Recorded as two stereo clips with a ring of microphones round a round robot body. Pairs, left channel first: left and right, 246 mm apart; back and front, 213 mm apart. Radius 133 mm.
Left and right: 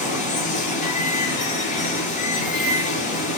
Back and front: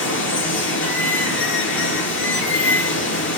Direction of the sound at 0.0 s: 150° left.